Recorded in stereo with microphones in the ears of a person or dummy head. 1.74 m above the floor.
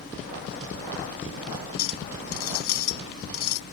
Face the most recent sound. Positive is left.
turn(degrees=80)